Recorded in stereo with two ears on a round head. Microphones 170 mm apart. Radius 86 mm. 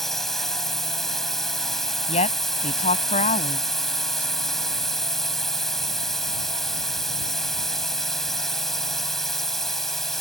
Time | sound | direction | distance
0.0 | a drone | centre (ahead or behind) | ?
2.1 | a woman speaking | 35° left (ahead or behind) | ?